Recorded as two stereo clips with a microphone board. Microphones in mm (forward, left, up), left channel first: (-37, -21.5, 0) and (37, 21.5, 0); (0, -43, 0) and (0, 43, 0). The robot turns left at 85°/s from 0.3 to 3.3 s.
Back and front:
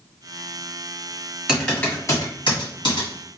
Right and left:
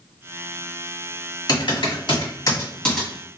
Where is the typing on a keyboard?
50° right, 1.8 m; by 3.1 s 175° left, 1.8 m.